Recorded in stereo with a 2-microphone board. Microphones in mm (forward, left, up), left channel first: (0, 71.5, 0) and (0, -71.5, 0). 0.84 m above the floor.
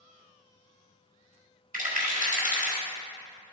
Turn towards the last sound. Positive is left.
turn(degrees=-70)  # may be behind; listen again after turning